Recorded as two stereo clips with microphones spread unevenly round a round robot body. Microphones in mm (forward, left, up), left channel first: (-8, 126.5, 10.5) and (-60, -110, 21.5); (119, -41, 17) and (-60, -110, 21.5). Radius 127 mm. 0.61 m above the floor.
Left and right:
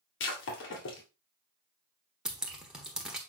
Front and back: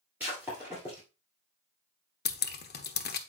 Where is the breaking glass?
120° left, 2.5 m.